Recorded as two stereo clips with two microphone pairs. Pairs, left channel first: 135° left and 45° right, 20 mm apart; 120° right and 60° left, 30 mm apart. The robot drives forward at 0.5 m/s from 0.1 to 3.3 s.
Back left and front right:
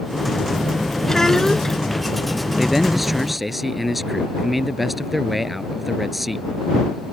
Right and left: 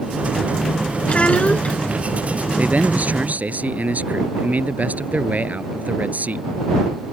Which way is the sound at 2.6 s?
35° left.